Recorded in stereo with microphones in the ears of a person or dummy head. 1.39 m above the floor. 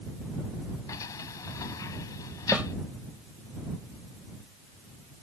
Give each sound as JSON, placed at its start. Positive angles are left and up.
{"t": 0.9, "sound": "a sliding door", "side_deg": 15}
{"t": 2.5, "sound": "a snare drum", "side_deg": 0}